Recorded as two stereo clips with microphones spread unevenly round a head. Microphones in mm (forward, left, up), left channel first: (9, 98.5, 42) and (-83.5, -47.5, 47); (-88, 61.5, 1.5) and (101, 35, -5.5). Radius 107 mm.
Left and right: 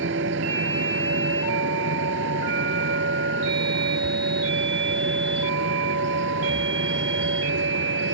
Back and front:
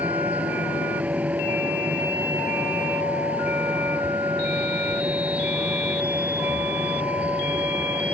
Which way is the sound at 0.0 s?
90° right.